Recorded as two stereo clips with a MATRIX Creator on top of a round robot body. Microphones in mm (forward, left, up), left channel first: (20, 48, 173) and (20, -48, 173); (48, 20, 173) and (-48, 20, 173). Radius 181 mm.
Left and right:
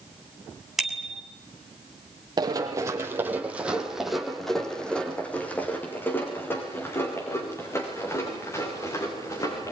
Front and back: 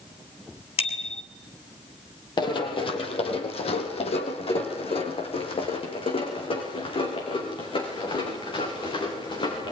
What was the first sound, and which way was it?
A bicycle bell, 5° right.